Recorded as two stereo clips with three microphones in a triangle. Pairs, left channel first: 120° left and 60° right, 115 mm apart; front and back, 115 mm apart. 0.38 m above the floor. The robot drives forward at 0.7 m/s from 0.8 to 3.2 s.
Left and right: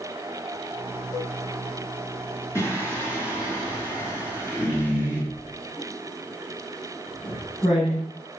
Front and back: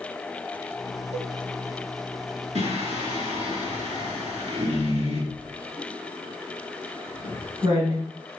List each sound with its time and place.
1.1 s a cowbell: straight behind, 0.7 m
2.5 s singing: 175° right, 3.5 m
5.3 s writing: 155° left, 4 m